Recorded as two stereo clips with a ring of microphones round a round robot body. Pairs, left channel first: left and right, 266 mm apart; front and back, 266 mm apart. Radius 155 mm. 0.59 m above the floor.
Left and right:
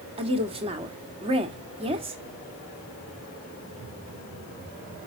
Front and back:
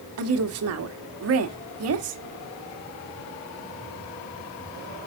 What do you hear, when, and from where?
0.2 s a woman speaking: 160° right, 1.6 m